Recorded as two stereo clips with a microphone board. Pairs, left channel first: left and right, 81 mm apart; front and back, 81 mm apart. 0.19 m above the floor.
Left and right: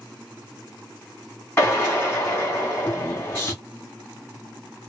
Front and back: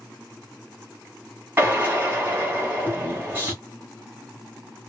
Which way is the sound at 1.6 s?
135° left.